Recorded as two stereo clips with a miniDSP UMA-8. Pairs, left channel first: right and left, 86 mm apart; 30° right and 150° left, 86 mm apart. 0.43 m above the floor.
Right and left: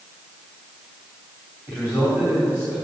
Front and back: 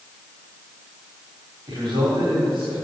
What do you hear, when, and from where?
1.7 s a man speaking: 155° left, 3 m